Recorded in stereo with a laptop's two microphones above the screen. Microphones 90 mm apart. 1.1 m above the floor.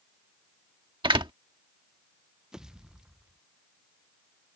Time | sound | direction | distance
1.0 | a door slam | 65° right (ahead or behind) | ?
2.5 | a pop | 5° right (ahead or behind) | ?